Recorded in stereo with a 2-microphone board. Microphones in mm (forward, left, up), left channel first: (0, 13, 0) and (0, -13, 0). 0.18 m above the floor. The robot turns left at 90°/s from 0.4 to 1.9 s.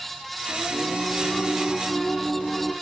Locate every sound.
0.5 s singing: 90° right, 2.5 m; by 2.7 s 140° left, 2.5 m